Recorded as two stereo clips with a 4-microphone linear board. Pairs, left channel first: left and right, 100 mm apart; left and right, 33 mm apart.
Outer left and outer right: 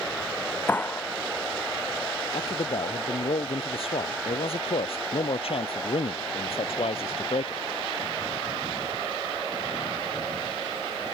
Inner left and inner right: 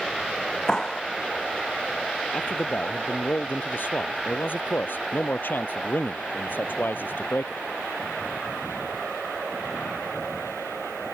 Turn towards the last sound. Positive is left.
turn(degrees=70)  # may be behind; listen again after turning